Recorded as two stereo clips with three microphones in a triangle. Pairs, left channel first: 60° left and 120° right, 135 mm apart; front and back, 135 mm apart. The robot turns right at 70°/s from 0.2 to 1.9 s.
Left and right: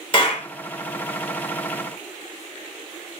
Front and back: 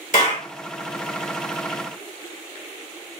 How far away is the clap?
About 3 m.